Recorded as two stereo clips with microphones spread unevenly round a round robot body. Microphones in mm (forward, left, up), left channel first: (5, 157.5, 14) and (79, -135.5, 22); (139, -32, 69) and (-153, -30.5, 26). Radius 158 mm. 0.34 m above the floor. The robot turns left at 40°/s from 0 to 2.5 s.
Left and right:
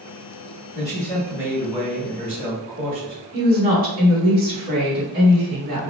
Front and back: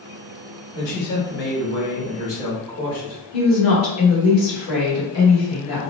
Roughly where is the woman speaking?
Ahead right.